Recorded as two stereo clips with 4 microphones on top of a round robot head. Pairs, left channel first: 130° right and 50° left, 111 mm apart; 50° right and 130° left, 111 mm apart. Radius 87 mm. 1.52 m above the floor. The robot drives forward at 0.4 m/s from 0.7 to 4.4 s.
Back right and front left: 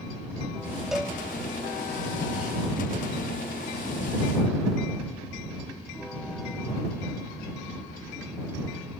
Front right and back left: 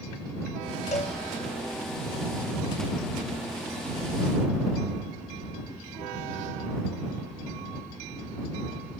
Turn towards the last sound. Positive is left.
turn(degrees=-155)